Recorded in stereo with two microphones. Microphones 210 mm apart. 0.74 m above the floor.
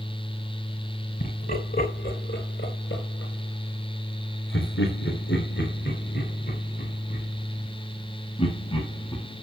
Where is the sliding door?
No sliding door in this recording.